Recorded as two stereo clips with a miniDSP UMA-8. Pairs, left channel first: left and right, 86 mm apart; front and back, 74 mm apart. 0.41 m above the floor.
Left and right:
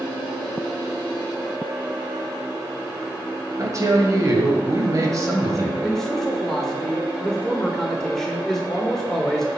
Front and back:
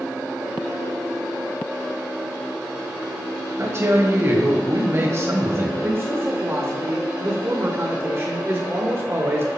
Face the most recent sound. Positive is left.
turn(degrees=170)